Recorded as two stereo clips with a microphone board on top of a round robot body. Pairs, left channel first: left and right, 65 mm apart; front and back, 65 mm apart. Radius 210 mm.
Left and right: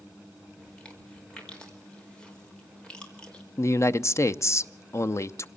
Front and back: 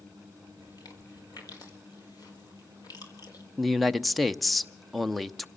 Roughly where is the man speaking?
Left.